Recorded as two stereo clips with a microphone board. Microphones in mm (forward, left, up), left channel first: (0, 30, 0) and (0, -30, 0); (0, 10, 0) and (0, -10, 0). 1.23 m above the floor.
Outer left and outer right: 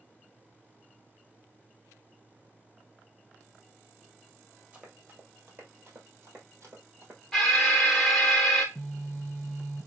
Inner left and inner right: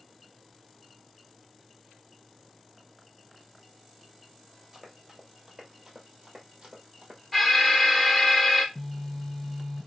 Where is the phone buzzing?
Centre (ahead or behind), 1.6 m.